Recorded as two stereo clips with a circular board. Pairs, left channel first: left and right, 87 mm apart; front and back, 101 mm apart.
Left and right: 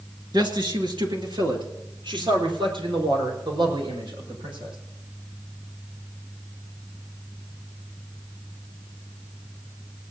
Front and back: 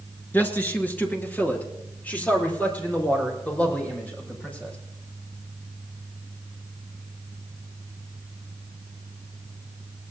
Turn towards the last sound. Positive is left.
turn(degrees=-75)